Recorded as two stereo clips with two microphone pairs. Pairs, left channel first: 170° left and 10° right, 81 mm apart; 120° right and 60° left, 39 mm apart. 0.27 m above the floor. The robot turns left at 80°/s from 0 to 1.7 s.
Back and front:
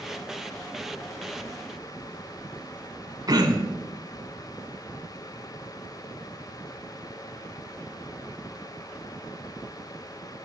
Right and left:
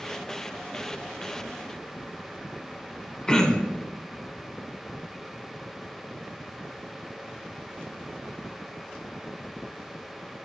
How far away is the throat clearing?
About 0.7 m.